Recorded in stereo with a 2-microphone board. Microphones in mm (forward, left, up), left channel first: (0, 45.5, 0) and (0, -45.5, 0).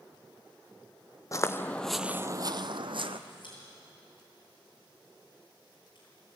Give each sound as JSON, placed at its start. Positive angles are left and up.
{"t": 1.3, "sound": "footsteps", "side_deg": 35, "distance_m": 0.9}
{"t": 3.3, "sound": "a pop", "side_deg": 60, "distance_m": 8.5}